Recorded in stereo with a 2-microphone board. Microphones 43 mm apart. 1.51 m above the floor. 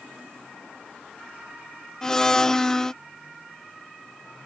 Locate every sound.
2.0 s a blender: 15° left (ahead or behind)